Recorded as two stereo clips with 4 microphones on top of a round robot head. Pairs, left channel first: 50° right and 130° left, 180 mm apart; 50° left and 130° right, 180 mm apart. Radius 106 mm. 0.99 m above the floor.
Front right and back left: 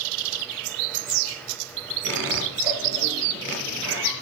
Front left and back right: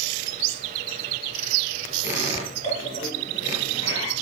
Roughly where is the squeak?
Left.